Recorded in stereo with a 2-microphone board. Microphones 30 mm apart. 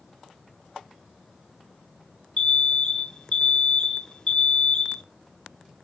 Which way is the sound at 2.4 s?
30° left (ahead or behind).